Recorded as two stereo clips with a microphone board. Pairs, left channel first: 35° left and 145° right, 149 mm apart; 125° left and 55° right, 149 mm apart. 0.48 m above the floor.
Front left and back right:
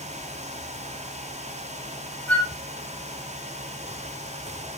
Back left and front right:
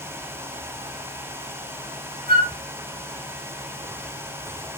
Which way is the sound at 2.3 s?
45° right.